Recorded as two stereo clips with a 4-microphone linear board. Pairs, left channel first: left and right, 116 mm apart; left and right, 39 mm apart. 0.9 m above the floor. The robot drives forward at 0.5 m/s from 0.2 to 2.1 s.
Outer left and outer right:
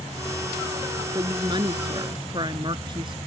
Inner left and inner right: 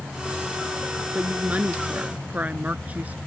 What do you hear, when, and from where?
1.1 s a woman speaking: 40° right (ahead or behind)